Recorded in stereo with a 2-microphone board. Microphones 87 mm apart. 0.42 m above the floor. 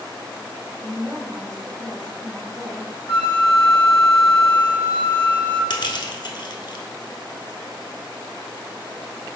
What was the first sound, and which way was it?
A woman speaking, 50° right (ahead or behind).